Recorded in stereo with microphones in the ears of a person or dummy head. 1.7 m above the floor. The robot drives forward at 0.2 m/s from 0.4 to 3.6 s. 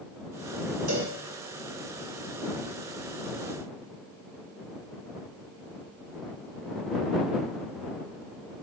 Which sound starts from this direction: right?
A cowbell, at 0.9 s.